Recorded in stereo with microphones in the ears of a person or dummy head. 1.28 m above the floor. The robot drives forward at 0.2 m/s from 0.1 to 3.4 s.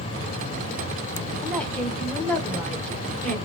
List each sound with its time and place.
1.4 s a woman speaking: 5° left (ahead or behind), 0.7 m